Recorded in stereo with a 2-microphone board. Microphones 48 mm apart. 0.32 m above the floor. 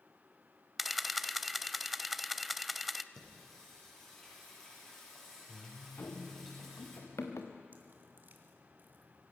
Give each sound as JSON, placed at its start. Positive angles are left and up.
{"t": 0.8, "sound": "a camera shutter", "side_deg": 0, "distance_m": 0.5}
{"t": 3.1, "sound": "singing", "side_deg": 10, "distance_m": 7.0}
{"t": 6.0, "sound": "running footsteps", "side_deg": 85, "distance_m": 2.5}
{"t": 7.7, "sound": "dripping", "side_deg": -45, "distance_m": 2.0}